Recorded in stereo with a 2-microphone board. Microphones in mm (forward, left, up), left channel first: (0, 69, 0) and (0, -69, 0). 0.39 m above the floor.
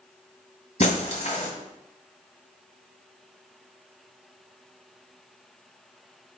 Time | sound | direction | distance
0.8 | breaking glass | 55° left (ahead or behind) | 1.6 m